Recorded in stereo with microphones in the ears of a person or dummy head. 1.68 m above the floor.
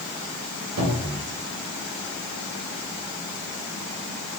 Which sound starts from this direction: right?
A cupboard door, at 0.8 s.